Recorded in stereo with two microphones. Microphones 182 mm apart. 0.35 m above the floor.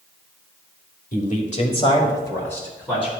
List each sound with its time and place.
1.1 s a man speaking: 45° left (ahead or behind), 1.4 m; by 3.1 s 5° left (ahead or behind), 3 m